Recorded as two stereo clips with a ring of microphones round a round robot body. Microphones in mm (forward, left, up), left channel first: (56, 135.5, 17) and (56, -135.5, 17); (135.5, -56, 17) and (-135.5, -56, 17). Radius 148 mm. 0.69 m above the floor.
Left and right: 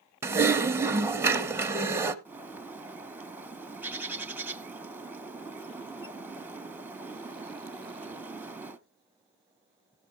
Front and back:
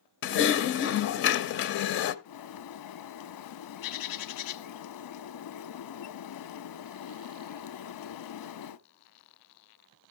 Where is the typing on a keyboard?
15° right, 0.6 m.